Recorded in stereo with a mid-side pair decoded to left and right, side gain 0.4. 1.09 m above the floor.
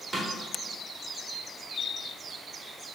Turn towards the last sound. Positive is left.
turn(degrees=-25)